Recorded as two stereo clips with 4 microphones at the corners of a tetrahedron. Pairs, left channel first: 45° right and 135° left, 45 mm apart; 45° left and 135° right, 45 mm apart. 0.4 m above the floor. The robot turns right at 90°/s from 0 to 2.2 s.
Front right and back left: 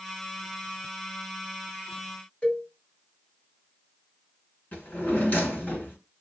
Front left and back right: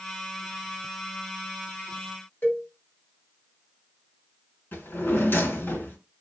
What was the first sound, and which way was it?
A cowbell, 20° left.